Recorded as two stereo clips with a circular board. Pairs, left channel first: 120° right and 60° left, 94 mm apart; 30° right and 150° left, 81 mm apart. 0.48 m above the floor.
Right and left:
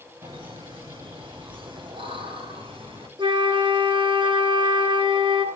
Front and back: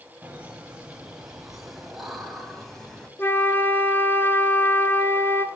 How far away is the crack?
I don't hear a crack.